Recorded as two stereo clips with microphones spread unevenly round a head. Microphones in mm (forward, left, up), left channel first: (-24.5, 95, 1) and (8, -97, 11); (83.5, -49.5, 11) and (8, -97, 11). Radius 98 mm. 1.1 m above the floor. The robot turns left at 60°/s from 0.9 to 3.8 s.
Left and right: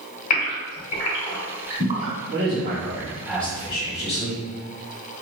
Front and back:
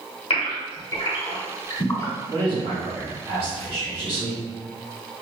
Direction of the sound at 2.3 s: 115° right.